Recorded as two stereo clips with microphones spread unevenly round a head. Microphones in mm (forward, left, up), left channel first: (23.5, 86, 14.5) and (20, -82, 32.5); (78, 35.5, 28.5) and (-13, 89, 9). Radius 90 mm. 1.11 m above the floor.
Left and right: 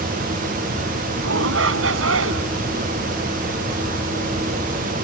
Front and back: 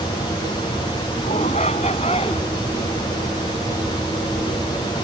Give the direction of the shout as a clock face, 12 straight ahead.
3 o'clock.